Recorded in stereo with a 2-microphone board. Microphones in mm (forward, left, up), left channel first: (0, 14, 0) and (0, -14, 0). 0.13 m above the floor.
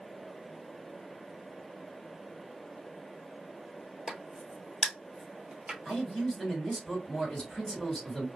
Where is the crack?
30° right (ahead or behind), 0.9 m.